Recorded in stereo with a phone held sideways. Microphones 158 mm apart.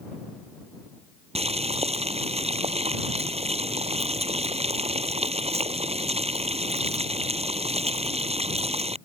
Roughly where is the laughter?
I don't hear laughter.